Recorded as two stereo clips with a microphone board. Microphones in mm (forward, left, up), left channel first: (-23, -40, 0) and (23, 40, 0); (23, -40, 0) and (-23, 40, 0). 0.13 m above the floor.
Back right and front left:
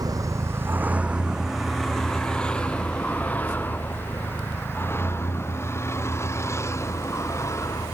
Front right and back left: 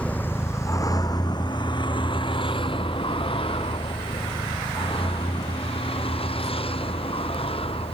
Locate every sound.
0.0 s a vehicle: 15° left; by 7.9 s 60° right